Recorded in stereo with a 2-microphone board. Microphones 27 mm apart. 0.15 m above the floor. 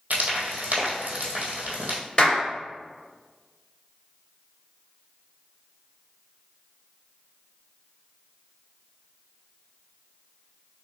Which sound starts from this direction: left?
A clap, at 2.2 s.